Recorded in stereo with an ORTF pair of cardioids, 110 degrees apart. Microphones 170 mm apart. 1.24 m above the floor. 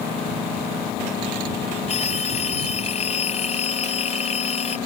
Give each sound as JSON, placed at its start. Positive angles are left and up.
{"t": 1.9, "sound": "a phone ringing", "azimuth_deg": 40}